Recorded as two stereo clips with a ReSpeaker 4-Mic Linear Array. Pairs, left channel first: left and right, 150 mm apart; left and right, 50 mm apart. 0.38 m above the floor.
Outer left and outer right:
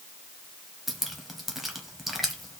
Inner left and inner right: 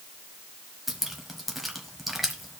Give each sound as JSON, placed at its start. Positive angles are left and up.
{"t": 0.9, "sound": "dripping", "side_deg": 0, "distance_m": 1.4}